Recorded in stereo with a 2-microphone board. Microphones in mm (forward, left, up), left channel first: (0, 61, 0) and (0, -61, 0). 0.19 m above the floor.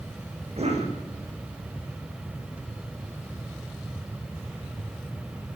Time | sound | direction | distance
0.6 | a cough | 60° right (ahead or behind) | 8.5 m